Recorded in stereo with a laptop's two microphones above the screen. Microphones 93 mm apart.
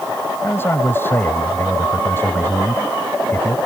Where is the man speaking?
25° left (ahead or behind).